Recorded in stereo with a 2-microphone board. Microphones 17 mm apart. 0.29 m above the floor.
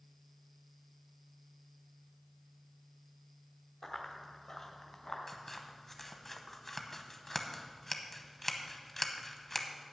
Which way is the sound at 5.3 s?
25° left (ahead or behind).